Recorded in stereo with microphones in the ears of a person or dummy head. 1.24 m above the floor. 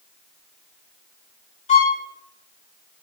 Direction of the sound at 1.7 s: 35° left (ahead or behind).